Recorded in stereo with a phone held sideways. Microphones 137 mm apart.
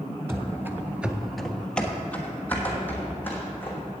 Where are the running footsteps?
20° right (ahead or behind), 1.1 m; by 3.8 s 15° left (ahead or behind), 3 m.